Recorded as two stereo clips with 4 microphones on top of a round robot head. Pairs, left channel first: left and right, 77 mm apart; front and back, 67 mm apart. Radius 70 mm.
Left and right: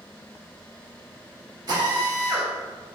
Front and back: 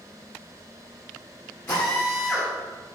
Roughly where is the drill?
Ahead right.